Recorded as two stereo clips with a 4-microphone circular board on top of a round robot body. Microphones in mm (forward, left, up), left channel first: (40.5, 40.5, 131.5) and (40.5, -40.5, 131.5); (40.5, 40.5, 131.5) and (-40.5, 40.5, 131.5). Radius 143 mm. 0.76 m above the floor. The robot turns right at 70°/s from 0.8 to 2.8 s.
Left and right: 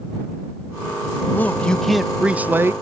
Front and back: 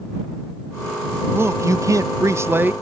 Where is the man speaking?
135° left; by 2.7 s 125° right.